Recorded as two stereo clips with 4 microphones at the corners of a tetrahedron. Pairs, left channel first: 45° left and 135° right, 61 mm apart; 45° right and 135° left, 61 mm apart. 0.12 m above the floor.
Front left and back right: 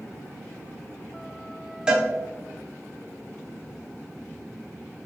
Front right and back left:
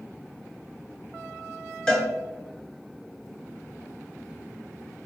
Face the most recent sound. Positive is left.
turn(degrees=-95)